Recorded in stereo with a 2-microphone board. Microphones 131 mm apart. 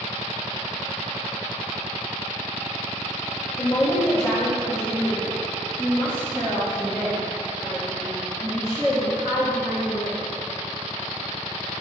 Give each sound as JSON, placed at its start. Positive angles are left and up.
{"t": 3.6, "sound": "a woman speaking", "side_deg": 20, "distance_m": 1.8}